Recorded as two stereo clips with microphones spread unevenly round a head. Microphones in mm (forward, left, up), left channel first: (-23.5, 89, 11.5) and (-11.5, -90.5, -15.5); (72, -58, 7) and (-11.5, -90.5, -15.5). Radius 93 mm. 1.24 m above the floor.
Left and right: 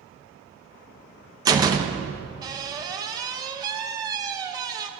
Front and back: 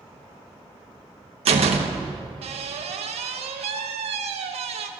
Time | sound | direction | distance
1.4 | a door slam | 160° right | 0.8 m